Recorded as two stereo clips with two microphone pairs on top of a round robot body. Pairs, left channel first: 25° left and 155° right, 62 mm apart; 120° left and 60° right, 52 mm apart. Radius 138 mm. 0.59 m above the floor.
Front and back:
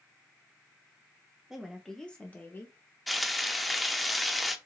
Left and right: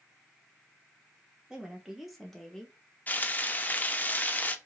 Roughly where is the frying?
Behind left.